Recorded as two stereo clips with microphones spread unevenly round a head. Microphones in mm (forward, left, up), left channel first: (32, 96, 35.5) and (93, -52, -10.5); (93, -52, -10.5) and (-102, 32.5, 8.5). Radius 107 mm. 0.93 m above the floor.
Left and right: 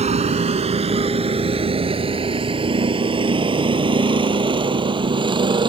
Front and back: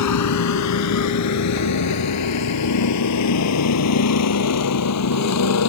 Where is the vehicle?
15° right; by 5.7 s 5° right.